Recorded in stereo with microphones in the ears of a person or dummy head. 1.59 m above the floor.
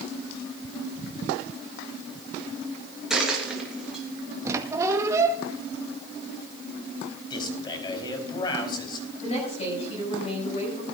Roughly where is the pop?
No pop in this recording.